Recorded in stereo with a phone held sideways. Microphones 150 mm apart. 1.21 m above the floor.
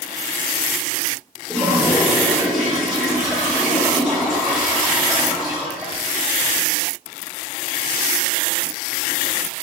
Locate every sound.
1.5 s a toilet flushing: centre (ahead or behind), 1.3 m